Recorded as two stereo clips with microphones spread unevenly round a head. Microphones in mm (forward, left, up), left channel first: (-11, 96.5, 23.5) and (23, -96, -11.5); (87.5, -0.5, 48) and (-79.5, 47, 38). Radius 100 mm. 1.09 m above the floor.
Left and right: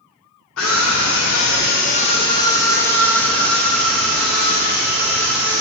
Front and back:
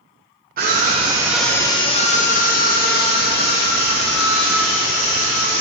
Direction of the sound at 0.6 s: 130° left.